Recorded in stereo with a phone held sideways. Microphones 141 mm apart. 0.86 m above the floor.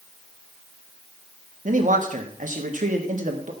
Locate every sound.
1.6 s a man speaking: 65° right (ahead or behind), 1.6 m